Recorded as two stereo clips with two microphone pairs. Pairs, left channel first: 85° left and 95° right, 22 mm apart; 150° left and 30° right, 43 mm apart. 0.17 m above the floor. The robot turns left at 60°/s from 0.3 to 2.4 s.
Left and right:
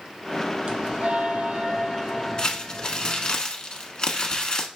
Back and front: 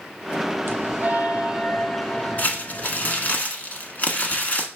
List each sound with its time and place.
0.7 s a bell: 50° right, 0.7 m; by 3.4 s 155° right, 0.7 m
2.4 s crumpling: 125° left, 0.9 m